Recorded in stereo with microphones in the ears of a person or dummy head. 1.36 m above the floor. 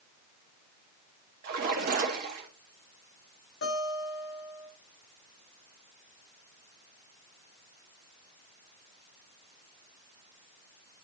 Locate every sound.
1.4 s a splash: 50° right (ahead or behind), 1.8 m
3.6 s a guitar: 75° left (ahead or behind), 4.5 m